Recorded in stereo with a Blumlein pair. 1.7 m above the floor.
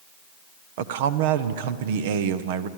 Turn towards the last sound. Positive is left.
turn(degrees=-55)